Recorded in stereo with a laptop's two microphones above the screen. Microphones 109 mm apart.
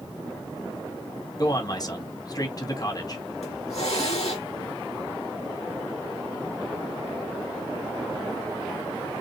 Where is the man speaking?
35° left (ahead or behind), 1.6 m.